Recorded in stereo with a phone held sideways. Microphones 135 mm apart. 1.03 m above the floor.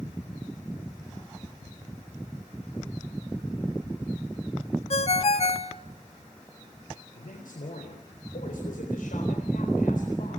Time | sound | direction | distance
4.9 | a ringtone | 50° left (ahead or behind) | 1.2 m
7.2 | a man speaking | 85° left | 3.5 m